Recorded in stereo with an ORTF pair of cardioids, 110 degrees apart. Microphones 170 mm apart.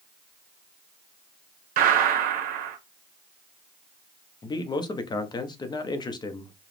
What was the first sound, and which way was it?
A gunshot, 65° right.